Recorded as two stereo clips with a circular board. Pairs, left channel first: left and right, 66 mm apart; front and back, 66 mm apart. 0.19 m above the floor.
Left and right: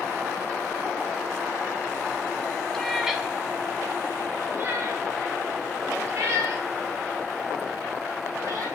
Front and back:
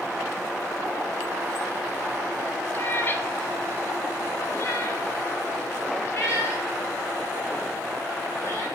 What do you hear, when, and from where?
2.7 s a cat meowing: 15° left, 0.7 m; by 8.7 s 50° right, 3.5 m